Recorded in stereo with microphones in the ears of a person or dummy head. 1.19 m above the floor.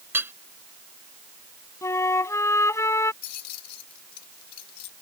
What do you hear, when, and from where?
0.1 s hammering: 10° right (ahead or behind)
1.8 s a flute: 15° left (ahead or behind)
3.2 s keys jangling: 55° left (ahead or behind)